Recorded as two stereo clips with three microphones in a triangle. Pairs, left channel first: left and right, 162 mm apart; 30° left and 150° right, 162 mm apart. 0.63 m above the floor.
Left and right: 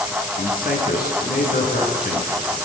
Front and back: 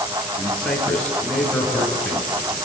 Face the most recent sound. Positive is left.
turn(degrees=115)